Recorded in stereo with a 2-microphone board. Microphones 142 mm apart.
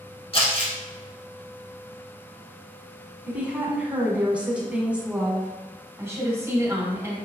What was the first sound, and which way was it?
Crumpling, 40° left (ahead or behind).